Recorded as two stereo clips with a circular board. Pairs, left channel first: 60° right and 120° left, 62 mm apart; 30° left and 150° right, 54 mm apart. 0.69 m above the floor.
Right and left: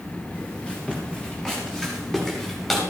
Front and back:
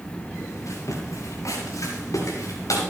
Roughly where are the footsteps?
Ahead.